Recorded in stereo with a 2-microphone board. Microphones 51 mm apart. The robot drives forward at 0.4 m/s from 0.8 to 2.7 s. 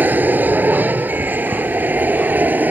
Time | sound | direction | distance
0.0 | an aircraft | 35° right (ahead or behind) | ?